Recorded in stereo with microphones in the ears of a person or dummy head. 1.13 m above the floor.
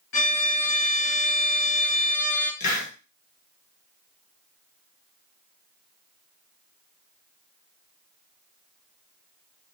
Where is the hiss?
50° left (ahead or behind), 1.1 m.